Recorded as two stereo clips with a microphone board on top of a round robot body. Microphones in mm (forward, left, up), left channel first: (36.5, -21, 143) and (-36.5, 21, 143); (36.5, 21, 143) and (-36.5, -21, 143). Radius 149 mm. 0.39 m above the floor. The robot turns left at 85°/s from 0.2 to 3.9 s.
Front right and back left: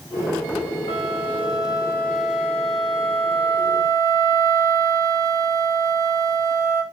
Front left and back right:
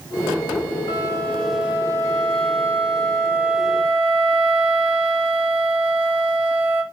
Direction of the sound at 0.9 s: 5° right.